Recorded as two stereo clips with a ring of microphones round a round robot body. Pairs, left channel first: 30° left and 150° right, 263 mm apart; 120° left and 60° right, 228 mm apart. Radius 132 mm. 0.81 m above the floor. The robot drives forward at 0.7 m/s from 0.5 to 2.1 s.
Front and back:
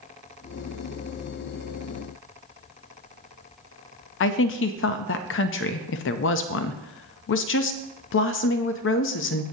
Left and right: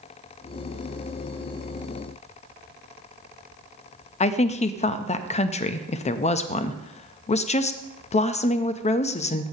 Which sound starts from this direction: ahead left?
A woman speaking, at 4.2 s.